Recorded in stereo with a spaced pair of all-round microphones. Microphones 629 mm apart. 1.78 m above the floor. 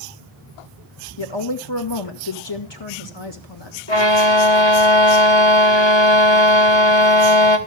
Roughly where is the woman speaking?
Left.